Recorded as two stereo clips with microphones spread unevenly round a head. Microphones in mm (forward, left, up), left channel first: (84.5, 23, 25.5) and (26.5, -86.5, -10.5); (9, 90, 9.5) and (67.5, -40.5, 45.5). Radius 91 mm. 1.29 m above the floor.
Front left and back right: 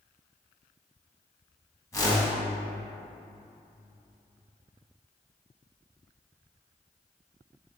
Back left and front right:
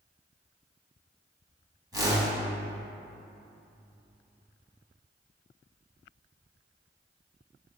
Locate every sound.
1.9 s a whoosh: 5° right, 2 m